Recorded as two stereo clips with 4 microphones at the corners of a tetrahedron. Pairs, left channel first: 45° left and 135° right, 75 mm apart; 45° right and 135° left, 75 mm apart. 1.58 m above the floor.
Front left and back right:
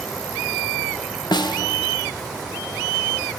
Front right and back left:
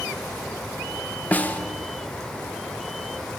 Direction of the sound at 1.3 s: 25° left.